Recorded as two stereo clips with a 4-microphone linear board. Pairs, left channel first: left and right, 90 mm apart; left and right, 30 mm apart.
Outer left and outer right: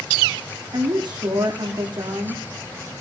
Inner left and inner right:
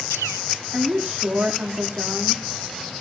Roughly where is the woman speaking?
Right.